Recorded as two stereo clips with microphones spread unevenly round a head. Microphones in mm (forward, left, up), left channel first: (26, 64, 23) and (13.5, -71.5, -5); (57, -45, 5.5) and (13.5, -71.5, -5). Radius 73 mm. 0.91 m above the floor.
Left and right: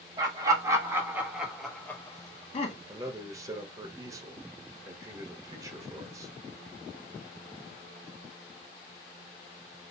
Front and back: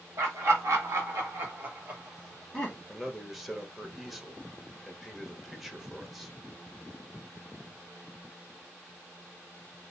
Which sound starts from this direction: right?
A man speaking, at 2.9 s.